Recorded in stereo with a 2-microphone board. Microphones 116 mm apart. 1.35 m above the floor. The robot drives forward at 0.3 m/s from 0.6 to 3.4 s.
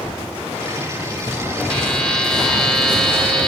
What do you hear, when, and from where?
1.7 s a buzzer: 5° left (ahead or behind), 1.1 m